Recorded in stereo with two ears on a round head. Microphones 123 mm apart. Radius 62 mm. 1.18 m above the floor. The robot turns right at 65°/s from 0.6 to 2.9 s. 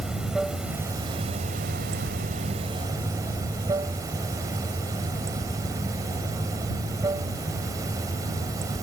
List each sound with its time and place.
0.0 s running water: 175° right; by 8.8 s 25° right